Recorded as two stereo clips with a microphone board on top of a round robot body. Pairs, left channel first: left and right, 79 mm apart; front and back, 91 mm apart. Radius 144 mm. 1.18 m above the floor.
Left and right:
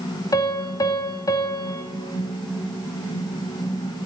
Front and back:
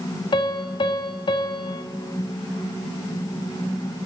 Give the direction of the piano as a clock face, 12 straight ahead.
11 o'clock.